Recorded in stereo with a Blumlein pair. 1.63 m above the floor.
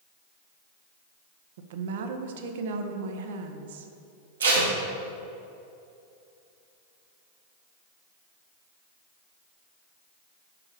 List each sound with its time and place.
1.6 s a woman speaking: 55° right, 0.8 m
4.4 s tape being pulled: 65° right, 1.7 m